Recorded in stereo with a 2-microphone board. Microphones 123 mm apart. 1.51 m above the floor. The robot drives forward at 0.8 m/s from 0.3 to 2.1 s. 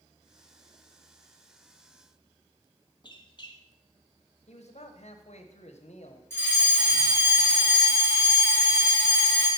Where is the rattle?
No rattle in this recording.